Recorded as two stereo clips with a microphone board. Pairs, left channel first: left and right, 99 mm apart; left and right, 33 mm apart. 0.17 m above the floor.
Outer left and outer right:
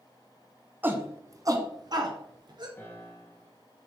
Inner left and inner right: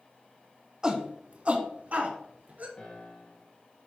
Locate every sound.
0.8 s a shout: 20° right (ahead or behind), 1.2 m; by 2.7 s 45° right (ahead or behind), 2.5 m
2.8 s a piano: 25° left (ahead or behind), 2 m